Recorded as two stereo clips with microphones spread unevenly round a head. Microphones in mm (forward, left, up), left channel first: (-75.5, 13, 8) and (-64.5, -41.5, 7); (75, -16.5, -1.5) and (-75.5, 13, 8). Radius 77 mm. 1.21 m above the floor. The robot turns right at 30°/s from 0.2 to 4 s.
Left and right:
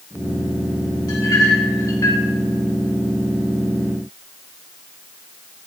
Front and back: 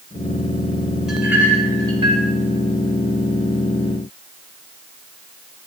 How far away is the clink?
About 3 m.